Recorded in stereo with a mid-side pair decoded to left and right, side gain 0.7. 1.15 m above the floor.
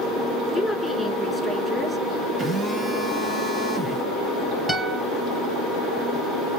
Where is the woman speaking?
5° left, 2.5 m.